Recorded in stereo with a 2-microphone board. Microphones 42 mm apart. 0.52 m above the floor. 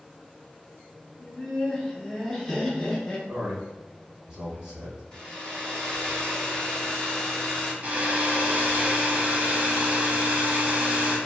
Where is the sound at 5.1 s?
20° left (ahead or behind), 0.8 m.